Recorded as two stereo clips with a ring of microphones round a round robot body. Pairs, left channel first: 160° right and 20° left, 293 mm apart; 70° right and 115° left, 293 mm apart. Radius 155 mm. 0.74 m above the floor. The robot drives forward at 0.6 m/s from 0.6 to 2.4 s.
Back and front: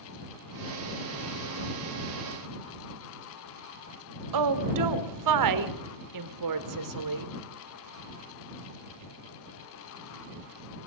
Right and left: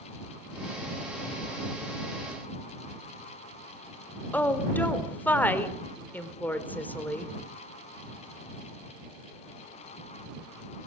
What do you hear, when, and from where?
4.3 s a woman speaking: 15° left, 3 m